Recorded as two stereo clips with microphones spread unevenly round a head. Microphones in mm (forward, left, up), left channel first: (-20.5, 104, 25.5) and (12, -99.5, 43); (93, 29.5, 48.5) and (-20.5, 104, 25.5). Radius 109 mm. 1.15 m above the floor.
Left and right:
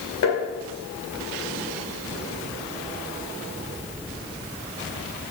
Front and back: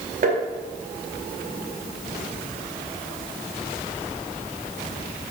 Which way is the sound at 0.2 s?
125° left.